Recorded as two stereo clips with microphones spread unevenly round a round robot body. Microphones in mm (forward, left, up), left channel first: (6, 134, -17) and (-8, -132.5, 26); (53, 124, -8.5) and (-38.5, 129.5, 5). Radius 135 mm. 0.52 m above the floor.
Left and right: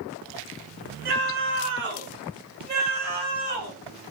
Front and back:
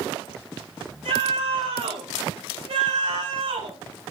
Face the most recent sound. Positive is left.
turn(degrees=-160)